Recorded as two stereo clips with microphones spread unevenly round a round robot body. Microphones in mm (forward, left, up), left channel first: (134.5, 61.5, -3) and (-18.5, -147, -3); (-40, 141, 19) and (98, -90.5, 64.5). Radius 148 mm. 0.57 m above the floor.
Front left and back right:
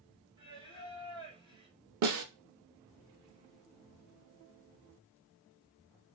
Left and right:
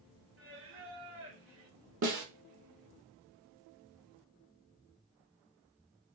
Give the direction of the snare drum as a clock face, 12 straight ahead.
4 o'clock.